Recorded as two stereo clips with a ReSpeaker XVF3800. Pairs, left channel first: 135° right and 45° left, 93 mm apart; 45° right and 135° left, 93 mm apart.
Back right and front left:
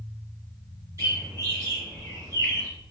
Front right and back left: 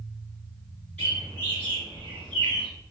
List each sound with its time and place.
1.0 s a bird: 20° left, 2.0 m